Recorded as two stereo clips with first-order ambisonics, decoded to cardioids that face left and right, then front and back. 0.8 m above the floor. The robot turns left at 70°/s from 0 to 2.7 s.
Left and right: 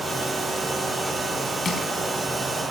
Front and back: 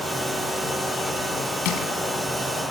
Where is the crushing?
25° left, 3.5 m; by 1.9 s 5° left, 3.5 m.